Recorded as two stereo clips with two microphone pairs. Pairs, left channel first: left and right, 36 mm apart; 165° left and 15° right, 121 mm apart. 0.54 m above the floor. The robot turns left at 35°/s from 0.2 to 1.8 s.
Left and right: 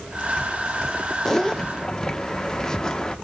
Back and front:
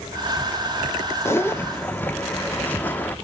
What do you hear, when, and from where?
1.2 s a zipper: 135° left, 0.9 m; by 3.1 s 115° left, 0.9 m